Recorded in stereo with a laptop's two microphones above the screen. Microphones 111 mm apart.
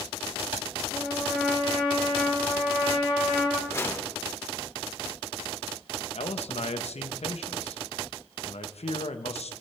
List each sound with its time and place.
0.9 s a trumpet: 15° right (ahead or behind), 8.5 m
3.7 s a whoosh: 25° left (ahead or behind), 1.8 m
6.2 s a man speaking: 70° left (ahead or behind), 1.1 m